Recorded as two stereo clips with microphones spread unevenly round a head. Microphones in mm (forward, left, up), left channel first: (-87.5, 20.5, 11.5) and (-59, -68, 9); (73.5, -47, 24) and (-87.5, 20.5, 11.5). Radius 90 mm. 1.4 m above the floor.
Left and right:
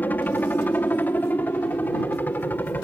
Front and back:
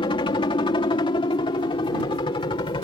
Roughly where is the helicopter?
Ahead left.